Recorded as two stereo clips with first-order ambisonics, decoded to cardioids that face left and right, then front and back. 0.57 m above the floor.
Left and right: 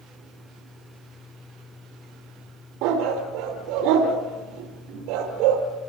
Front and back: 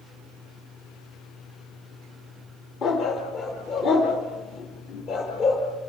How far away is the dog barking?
About 5 m.